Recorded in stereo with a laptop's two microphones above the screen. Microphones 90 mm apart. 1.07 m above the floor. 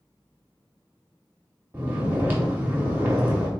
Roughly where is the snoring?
Right.